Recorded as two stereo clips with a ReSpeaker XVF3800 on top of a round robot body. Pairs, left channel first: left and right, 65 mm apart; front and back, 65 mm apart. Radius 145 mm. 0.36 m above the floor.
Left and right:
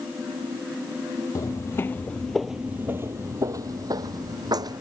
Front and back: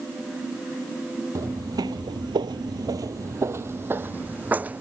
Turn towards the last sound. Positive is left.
turn(degrees=-110)